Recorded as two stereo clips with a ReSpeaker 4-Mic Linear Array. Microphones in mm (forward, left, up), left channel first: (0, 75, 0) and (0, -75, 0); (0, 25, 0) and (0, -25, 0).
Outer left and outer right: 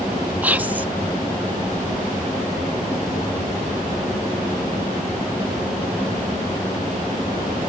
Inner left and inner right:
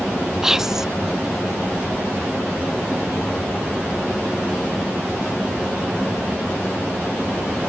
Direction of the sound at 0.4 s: 10° right (ahead or behind).